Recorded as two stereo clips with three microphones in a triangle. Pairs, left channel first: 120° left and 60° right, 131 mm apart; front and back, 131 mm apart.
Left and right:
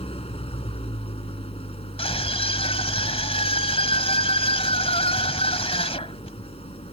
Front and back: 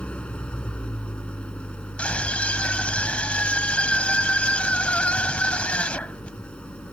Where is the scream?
80° left.